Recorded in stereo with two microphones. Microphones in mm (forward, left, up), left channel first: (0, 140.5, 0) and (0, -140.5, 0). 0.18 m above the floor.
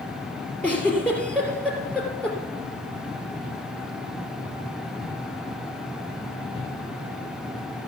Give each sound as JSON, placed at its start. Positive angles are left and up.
{"t": 0.6, "sound": "a giggle", "side_deg": 5, "distance_m": 3.0}